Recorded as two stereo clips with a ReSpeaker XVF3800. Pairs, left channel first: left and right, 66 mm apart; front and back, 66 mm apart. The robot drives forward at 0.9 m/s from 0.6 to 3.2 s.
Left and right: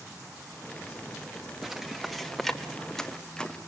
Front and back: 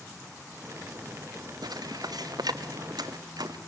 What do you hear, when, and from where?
1.6 s footsteps: 175° right, 1.4 m; by 3.6 s 170° left, 1.7 m